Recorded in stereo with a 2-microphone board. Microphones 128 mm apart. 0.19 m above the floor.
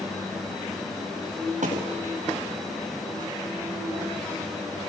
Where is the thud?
85° right, 5 m.